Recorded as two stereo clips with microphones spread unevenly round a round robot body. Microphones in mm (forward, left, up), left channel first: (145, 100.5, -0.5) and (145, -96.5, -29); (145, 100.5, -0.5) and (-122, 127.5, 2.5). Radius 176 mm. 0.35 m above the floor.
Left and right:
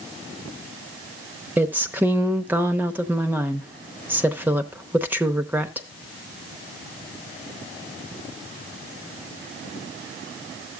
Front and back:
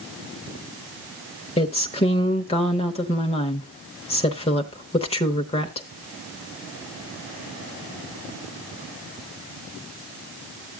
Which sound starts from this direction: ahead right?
A woman speaking, at 1.6 s.